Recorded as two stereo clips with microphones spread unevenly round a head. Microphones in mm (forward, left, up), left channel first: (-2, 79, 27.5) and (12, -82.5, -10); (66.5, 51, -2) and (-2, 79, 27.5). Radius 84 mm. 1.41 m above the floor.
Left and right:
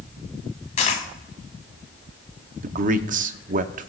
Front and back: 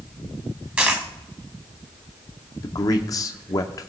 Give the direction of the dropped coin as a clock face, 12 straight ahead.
8 o'clock.